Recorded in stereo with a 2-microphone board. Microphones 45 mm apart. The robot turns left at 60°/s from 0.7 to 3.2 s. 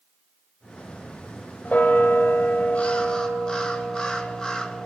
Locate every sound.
1.6 s a bell: 125° left, 1.4 m; by 4.9 s 30° left, 1.4 m